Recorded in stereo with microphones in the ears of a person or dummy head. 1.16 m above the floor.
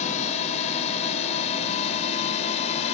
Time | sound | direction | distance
0.0 | a drone | 35° left (ahead or behind) | ?